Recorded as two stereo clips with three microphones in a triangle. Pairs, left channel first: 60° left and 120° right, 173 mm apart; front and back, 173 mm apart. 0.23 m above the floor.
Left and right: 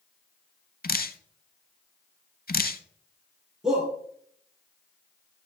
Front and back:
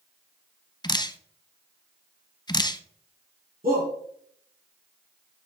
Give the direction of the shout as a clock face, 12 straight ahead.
7 o'clock.